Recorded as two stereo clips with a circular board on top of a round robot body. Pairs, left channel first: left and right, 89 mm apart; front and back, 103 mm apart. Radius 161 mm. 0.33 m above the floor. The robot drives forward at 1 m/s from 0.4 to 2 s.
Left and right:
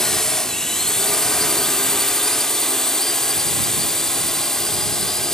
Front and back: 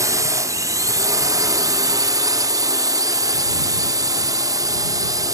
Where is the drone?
170° left.